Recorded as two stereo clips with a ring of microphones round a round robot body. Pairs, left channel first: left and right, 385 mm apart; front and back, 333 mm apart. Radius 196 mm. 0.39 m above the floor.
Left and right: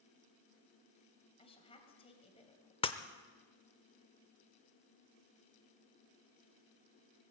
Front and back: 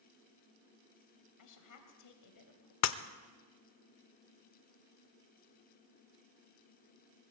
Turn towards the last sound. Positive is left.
turn(degrees=15)